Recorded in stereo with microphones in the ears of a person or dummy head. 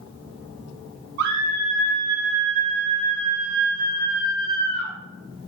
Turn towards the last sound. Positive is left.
turn(degrees=30)  # may be behind; listen again after turning